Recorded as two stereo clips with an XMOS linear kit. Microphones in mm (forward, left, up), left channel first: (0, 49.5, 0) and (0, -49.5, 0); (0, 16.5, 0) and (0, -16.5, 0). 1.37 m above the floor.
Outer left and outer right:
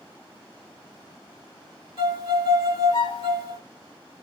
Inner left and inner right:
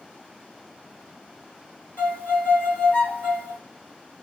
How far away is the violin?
About 1.6 m.